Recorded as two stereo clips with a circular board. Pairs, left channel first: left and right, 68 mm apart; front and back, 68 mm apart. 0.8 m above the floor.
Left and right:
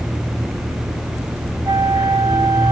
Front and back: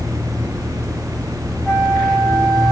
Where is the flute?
75° right, 0.9 m.